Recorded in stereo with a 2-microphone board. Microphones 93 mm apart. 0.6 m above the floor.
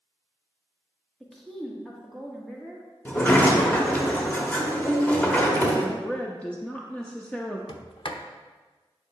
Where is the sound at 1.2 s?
Centre (ahead or behind), 1.2 m.